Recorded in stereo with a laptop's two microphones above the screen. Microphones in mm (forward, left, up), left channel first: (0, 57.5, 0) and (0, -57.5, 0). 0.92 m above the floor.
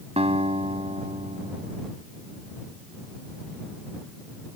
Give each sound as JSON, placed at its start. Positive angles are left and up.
{"t": 0.2, "sound": "a guitar", "side_deg": -60}